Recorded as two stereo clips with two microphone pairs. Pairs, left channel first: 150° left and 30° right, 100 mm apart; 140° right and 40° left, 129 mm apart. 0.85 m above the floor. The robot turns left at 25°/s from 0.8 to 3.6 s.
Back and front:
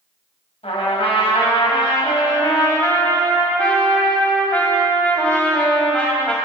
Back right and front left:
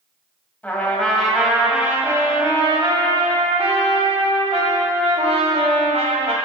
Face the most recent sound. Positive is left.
turn(degrees=70)